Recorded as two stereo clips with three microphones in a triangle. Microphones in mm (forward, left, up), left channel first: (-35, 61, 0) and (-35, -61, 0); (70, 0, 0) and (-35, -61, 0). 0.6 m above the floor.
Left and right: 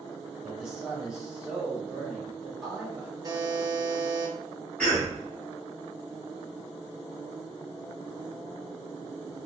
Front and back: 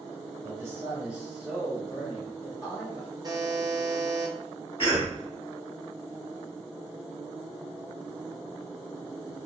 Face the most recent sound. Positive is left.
turn(degrees=15)